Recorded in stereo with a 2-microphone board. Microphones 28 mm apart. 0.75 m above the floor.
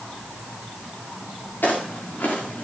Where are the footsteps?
80° left, 6.5 m.